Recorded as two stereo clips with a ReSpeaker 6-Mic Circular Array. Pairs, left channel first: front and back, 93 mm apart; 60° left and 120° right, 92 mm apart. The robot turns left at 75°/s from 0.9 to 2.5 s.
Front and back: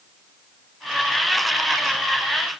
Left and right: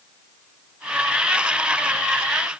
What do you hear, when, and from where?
Only background noise.